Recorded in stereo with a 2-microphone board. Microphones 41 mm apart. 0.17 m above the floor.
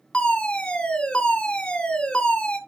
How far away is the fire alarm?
About 2.5 m.